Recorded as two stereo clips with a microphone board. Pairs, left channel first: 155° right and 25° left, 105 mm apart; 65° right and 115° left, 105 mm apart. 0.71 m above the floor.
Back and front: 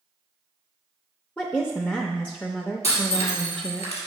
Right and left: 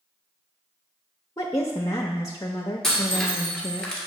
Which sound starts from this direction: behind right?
Breaking glass, at 2.8 s.